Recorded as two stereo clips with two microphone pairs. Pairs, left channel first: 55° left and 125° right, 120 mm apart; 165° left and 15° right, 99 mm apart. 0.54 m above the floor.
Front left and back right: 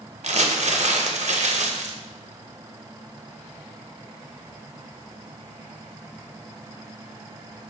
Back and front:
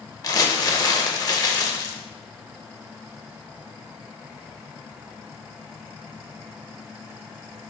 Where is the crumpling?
150° right, 0.5 m.